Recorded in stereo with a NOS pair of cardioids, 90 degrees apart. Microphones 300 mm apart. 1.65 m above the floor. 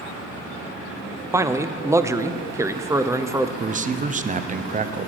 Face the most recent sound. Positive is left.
turn(degrees=-25)